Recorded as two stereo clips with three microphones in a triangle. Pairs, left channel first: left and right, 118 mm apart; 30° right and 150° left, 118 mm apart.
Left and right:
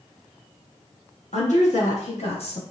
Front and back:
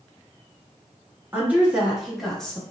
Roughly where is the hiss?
No hiss in this recording.